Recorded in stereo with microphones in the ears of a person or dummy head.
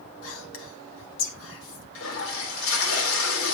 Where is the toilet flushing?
85° left, 4 m.